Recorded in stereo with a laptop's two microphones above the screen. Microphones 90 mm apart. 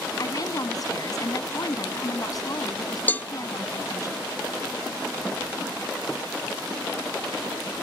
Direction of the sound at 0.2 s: 45° left (ahead or behind).